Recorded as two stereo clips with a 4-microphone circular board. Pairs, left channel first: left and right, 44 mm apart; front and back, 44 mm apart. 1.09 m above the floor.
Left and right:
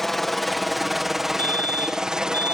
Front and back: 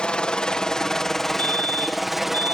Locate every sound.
0.0 s a helicopter: 15° left; by 2.5 s 110° right
1.4 s a fire alarm: 50° left